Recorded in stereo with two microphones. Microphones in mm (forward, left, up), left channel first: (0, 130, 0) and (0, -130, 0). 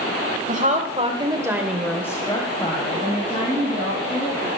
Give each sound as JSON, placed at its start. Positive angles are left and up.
{"t": 0.5, "sound": "a woman speaking", "side_deg": -30, "distance_m": 1.8}